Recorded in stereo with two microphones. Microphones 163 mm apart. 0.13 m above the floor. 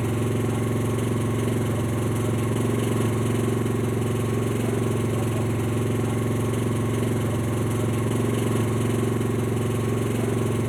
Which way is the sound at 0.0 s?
Centre (ahead or behind).